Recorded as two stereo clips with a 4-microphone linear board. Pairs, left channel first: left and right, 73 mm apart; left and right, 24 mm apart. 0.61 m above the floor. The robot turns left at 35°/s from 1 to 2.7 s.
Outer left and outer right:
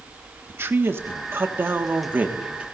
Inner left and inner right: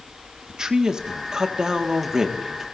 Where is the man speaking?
85° right, 1.4 m; by 2.6 s 145° right, 1.4 m.